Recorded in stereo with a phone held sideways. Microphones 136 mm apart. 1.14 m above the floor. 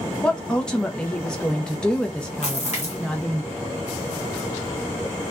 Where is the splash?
55° left (ahead or behind), 1.0 m.